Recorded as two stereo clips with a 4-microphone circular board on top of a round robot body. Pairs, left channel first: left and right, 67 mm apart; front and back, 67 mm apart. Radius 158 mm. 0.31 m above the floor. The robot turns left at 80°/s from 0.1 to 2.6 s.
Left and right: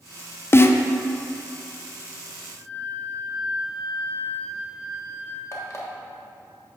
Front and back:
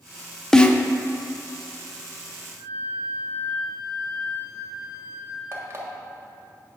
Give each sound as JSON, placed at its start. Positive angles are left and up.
{"t": 0.5, "sound": "a snare drum", "azimuth_deg": 75, "distance_m": 0.7}
{"t": 2.6, "sound": "a flute", "azimuth_deg": -30, "distance_m": 2.0}
{"t": 5.5, "sound": "an alarm clock", "azimuth_deg": 130, "distance_m": 1.5}